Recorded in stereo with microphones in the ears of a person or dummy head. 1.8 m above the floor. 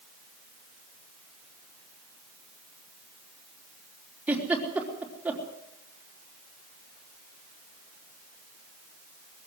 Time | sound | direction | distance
4.3 | a giggle | 15° right (ahead or behind) | 4 m